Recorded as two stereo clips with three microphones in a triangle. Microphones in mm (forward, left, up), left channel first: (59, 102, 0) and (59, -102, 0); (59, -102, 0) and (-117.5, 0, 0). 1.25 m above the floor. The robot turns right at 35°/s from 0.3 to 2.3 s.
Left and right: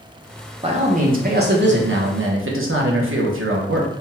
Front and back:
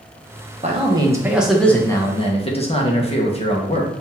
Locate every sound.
0.6 s a man speaking: 150° right, 0.9 m; by 3.9 s 95° right, 0.9 m